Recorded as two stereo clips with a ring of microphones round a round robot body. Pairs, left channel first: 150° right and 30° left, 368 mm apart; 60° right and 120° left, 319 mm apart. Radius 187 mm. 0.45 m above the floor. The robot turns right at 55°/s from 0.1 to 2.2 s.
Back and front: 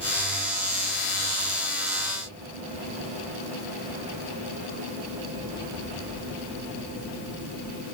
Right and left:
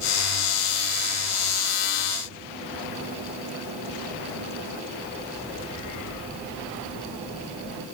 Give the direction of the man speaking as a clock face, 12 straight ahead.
I don't hear a man speaking.